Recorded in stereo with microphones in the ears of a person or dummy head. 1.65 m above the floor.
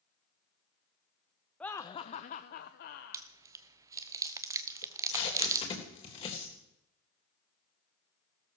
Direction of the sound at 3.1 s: 20° right (ahead or behind).